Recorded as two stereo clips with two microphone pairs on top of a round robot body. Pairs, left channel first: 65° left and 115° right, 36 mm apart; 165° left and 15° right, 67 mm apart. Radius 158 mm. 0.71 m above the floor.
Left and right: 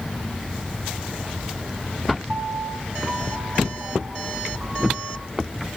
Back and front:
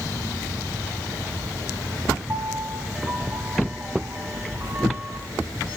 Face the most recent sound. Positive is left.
turn(degrees=-75)